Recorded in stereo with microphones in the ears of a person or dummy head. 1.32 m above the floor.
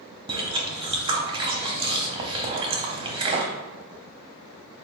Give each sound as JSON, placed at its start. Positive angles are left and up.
{"t": 0.3, "sound": "chewing", "side_deg": -25, "distance_m": 0.6}